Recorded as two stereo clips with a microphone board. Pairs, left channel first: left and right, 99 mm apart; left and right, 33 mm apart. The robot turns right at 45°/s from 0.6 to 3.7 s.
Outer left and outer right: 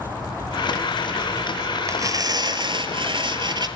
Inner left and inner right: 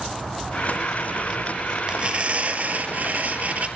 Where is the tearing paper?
145° right, 1.1 m; by 3.7 s 60° right, 1.1 m.